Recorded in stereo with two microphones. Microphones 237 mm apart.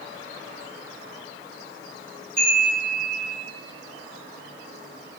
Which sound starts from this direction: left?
A chime, at 2.4 s.